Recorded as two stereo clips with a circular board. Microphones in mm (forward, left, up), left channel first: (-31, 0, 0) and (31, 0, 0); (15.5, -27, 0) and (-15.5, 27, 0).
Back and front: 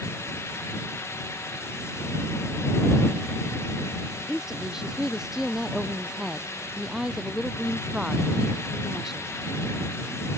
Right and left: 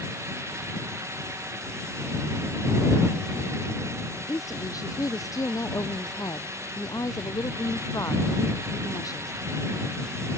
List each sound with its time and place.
4.3 s a woman speaking: 80° right